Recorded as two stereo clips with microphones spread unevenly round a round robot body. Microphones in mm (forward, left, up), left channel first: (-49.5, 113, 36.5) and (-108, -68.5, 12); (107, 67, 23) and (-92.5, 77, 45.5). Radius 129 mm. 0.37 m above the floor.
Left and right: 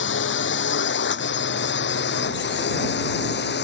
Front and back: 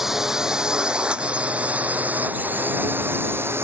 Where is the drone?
90° left; by 3.6 s 100° left.